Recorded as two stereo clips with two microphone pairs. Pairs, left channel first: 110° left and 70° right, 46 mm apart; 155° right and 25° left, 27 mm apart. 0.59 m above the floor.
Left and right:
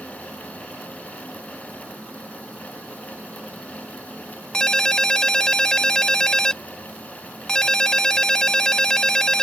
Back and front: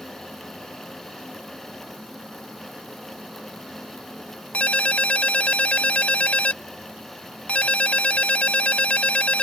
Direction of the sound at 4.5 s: 175° right.